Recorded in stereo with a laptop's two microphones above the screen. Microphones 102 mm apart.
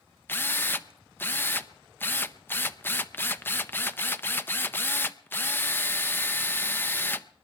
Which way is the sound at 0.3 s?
20° left (ahead or behind).